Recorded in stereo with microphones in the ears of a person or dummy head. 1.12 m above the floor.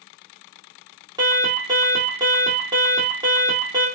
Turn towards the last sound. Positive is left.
turn(degrees=-25)  # may be behind; listen again after turning